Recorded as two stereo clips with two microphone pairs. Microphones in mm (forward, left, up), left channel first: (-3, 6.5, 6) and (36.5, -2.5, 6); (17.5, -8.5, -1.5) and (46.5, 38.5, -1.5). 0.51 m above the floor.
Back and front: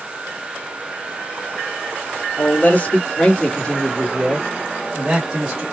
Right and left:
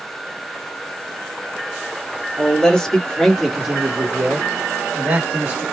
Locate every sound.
2.4 s a man speaking: 170° left, 1.6 m; by 5.6 s 30° left, 1.4 m